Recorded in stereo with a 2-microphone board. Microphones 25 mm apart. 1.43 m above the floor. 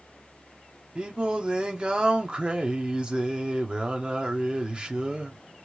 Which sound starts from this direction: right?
Singing, at 0.9 s.